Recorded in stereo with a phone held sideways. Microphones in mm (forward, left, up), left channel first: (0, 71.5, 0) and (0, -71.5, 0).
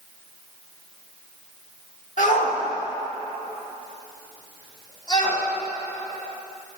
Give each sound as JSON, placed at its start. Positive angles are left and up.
{"t": 2.2, "sound": "a shout", "side_deg": 65, "distance_m": 1.9}